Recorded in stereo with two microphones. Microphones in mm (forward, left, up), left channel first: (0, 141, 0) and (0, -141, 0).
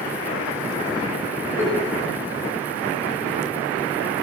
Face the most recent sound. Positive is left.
turn(degrees=10)  # may be behind; listen again after turning